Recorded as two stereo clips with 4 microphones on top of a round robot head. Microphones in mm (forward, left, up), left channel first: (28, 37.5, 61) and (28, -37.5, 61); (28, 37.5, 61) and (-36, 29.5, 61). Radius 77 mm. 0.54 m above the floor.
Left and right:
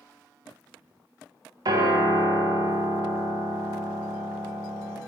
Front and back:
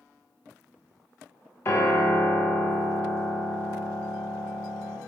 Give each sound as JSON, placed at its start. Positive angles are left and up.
{"t": 1.6, "sound": "a piano", "azimuth_deg": -55, "distance_m": 0.9}